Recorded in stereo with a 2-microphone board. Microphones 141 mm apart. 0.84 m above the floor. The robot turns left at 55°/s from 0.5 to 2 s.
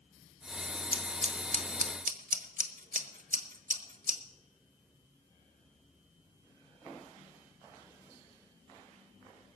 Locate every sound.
0.9 s scissors: 35° right (ahead or behind), 1.1 m; by 4.2 s 70° right (ahead or behind), 1.1 m